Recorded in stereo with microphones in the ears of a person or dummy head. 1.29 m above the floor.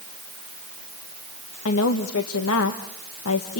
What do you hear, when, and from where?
1.6 s a woman speaking: 75° left (ahead or behind), 1.6 m